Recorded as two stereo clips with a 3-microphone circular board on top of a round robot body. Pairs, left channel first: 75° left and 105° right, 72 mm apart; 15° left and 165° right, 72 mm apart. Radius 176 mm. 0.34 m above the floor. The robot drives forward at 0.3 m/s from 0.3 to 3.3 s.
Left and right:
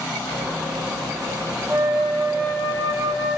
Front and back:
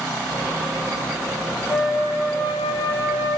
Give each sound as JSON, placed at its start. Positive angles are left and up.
{"t": 1.7, "sound": "a flute", "azimuth_deg": -105, "distance_m": 2.5}